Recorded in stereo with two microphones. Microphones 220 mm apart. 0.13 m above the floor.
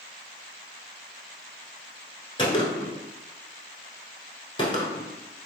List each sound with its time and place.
2.4 s a gunshot: 25° left (ahead or behind), 0.7 m